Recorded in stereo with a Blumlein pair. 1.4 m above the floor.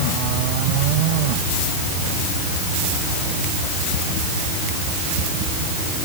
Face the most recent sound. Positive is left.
No sound to turn to.